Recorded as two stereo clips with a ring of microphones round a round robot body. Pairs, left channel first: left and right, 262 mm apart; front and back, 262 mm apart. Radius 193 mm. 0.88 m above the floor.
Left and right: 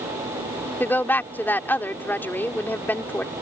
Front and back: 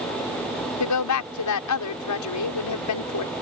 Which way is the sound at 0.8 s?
5° left.